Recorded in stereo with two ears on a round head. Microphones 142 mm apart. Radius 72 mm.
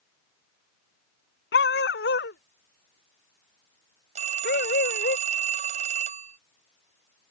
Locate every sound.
1.5 s a dog barking: 70° left (ahead or behind); by 5.2 s 60° left (ahead or behind)
4.2 s a phone ringing: 40° right (ahead or behind)